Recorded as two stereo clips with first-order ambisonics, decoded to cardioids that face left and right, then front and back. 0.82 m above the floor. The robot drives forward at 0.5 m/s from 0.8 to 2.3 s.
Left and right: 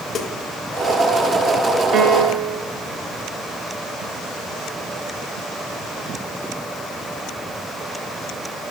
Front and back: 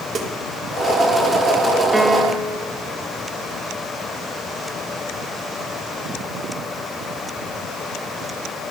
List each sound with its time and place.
0.1 s a snare drum: 140° left, 0.9 m
1.9 s a piano: 95° right, 0.6 m; by 2.6 s 125° right, 0.6 m